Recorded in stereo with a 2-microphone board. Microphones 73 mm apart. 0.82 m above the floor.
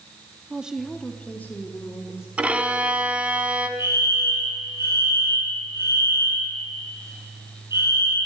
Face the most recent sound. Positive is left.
turn(degrees=75)  # may be behind; listen again after turning